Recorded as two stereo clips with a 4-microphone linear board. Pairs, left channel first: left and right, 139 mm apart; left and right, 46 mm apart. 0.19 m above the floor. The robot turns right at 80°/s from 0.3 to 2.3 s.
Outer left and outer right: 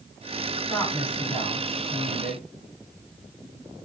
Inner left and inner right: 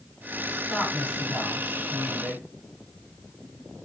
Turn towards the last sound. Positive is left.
turn(degrees=120)